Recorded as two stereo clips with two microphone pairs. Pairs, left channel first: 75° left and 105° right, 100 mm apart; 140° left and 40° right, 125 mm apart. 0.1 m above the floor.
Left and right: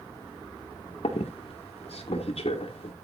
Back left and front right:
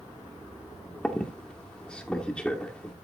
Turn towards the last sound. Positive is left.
turn(degrees=60)